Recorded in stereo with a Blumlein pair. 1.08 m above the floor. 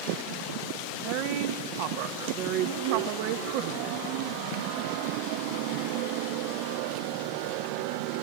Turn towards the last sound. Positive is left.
turn(degrees=-45)